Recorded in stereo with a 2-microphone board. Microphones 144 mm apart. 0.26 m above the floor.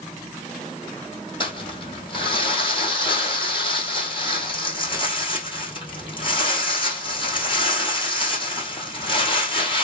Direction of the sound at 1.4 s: 35° left (ahead or behind).